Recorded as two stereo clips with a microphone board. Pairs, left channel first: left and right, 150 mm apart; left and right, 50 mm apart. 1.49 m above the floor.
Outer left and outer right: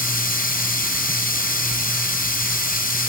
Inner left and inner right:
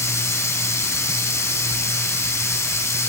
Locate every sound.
0.0 s running water: 85° left, 6 m